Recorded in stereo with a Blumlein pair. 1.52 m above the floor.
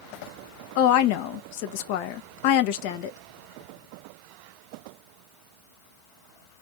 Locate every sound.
0.8 s a woman speaking: 45° left, 0.6 m